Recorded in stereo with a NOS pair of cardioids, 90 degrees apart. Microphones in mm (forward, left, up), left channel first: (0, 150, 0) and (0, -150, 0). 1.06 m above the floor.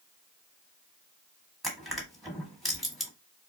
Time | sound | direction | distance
1.6 | crushing | straight ahead | 1.3 m